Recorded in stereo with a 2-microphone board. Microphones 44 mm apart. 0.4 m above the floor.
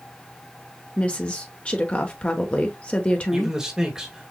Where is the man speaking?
10° right (ahead or behind), 1.7 m.